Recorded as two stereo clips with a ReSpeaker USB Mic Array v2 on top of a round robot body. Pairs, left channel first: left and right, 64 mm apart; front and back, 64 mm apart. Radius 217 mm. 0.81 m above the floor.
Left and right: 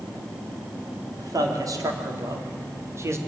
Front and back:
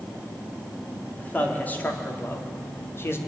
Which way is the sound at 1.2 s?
65° right.